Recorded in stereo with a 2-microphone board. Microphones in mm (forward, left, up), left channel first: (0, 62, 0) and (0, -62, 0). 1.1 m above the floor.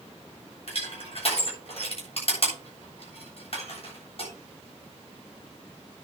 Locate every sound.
0.7 s crushing: 55° left (ahead or behind), 7.5 m